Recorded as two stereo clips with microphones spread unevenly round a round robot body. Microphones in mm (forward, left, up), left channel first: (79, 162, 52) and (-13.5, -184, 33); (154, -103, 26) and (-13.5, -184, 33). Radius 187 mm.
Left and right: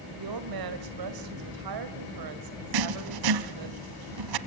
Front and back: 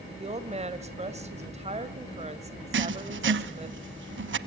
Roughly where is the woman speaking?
Right.